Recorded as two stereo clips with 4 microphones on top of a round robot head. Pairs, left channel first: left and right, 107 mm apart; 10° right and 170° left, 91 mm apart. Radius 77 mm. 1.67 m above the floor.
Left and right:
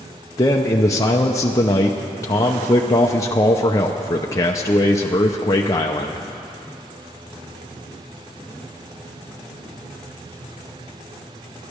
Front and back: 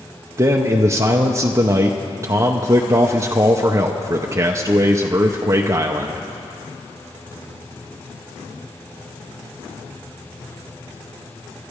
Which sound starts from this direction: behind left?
A man speaking, at 0.4 s.